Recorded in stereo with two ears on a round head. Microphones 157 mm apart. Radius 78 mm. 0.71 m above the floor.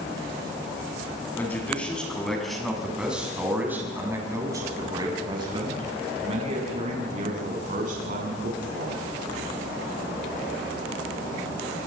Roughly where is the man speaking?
Centre.